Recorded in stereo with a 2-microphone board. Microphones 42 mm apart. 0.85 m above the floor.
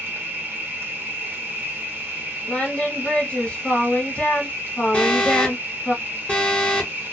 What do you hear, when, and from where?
0.0 s an insect: 65° right (ahead or behind), 0.8 m
2.5 s singing: 30° left (ahead or behind), 1.2 m
4.9 s an alarm: 30° left (ahead or behind), 1.3 m